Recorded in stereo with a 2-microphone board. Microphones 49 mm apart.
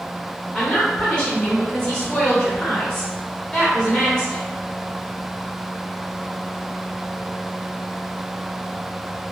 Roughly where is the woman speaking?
Left.